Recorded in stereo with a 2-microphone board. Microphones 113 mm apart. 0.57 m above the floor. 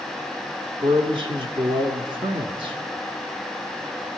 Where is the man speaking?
50° right (ahead or behind), 1.1 m.